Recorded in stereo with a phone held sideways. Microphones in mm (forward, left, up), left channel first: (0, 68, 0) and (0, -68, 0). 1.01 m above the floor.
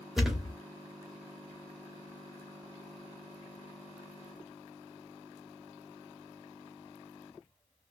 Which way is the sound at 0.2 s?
Centre (ahead or behind).